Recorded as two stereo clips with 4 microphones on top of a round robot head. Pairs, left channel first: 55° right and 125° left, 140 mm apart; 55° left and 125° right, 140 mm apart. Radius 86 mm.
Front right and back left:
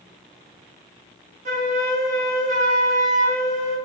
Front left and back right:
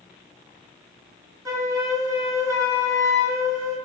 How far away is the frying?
I don't hear frying.